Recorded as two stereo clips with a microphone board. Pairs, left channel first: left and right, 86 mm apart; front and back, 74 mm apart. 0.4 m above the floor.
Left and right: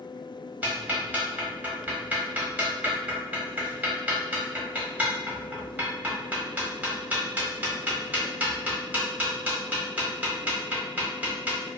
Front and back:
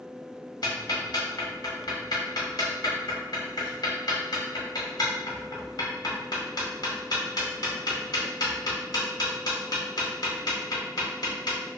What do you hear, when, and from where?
0.6 s ticking: 20° right, 0.9 m